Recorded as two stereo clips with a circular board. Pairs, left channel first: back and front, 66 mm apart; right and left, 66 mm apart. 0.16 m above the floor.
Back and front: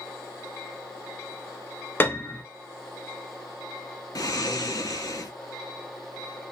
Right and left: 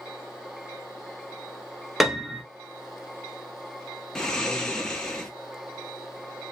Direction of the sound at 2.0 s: 175° left.